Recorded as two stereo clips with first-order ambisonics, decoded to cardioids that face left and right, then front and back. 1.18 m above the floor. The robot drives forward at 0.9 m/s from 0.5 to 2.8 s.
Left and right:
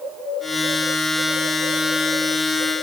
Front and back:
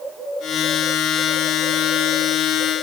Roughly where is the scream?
No scream in this recording.